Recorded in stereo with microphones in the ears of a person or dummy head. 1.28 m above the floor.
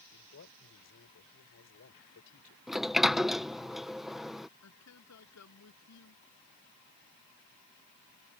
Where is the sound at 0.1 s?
70° left (ahead or behind).